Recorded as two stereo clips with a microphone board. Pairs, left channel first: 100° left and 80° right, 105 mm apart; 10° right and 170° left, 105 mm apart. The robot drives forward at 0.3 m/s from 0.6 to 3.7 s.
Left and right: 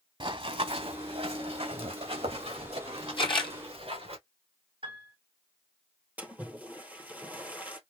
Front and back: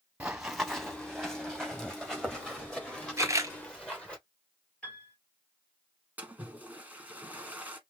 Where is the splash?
130° right, 1.1 m.